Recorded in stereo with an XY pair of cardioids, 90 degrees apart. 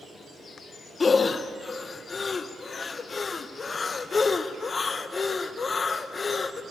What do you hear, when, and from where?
1.0 s breathing: 40° left, 0.7 m